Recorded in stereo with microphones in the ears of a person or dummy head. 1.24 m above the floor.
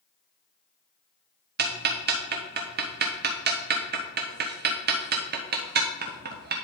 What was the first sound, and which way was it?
Ticking, 55° right (ahead or behind).